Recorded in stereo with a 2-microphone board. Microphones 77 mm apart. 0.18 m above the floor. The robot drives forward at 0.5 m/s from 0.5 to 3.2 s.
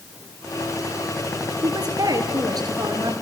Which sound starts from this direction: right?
A woman speaking, at 1.6 s.